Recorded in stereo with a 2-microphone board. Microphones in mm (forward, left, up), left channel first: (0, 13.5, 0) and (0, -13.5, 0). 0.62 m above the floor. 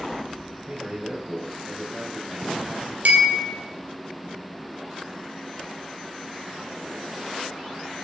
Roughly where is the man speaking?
Centre.